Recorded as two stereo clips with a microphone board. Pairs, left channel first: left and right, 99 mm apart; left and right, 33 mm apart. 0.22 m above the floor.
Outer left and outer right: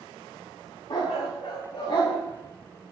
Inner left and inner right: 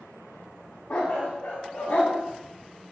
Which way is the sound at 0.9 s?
55° left (ahead or behind).